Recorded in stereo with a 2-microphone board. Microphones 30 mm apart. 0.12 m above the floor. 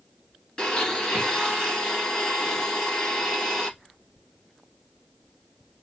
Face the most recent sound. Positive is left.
turn(degrees=25)  # may be behind; listen again after turning